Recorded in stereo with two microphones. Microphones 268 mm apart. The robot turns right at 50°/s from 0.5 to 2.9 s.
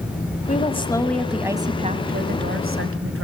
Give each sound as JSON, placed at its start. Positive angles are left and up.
{"t": 0.5, "sound": "a woman speaking", "azimuth_deg": 145, "distance_m": 1.4}